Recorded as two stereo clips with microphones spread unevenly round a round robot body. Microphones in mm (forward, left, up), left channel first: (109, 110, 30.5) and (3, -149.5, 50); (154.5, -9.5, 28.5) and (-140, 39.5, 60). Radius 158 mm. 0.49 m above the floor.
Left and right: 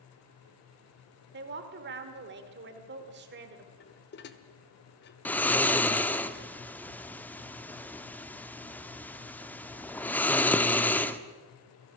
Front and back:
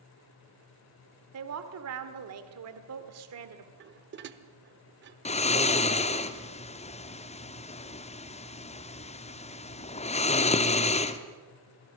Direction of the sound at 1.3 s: 160° right.